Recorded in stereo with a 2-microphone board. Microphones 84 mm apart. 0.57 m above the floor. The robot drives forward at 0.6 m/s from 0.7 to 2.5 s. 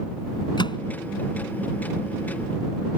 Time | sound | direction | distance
0.6 | a microwave | 65° left (ahead or behind) | ?